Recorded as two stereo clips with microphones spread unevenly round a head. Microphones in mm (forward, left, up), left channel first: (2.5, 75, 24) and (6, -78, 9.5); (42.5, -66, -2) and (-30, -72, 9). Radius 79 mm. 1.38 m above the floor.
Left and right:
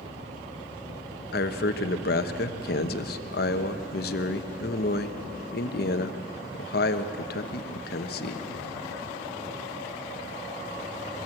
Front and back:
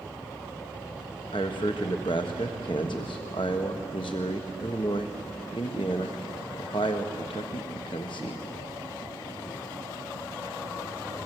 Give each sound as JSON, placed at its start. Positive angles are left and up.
{"t": 1.3, "sound": "a man speaking", "azimuth_deg": 65, "distance_m": 1.2}